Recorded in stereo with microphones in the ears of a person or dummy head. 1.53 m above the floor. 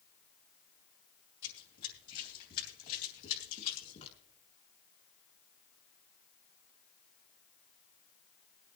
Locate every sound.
1.4 s running footsteps: 60° left (ahead or behind), 4 m; by 4.2 s 40° left (ahead or behind), 3 m